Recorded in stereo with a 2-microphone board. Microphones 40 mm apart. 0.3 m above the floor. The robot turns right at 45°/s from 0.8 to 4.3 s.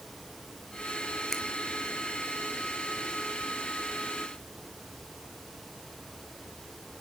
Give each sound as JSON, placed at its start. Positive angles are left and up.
{"t": 1.3, "sound": "a finger snap", "side_deg": 10, "distance_m": 3.0}